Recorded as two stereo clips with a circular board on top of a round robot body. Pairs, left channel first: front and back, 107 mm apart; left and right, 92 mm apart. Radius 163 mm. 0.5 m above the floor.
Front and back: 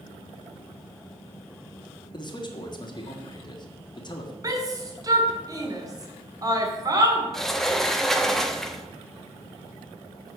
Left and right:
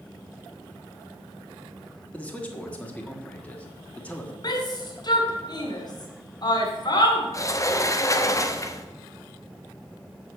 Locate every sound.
2.1 s a man speaking: 20° left, 1.8 m
4.4 s a shout: 125° left, 1.8 m
7.3 s a sliding door: 85° left, 1.2 m